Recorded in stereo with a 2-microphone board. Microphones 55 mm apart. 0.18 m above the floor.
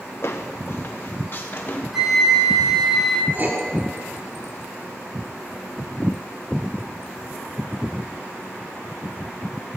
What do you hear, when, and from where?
0.2 s footsteps: 55° left (ahead or behind), 1.4 m; by 1.8 s 40° left (ahead or behind), 2.5 m
1.9 s a flute: 5° right (ahead or behind), 1.5 m
3.3 s writing: 35° right (ahead or behind), 2 m